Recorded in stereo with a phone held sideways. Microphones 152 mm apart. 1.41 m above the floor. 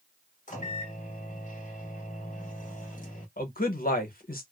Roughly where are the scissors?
No scissors in this recording.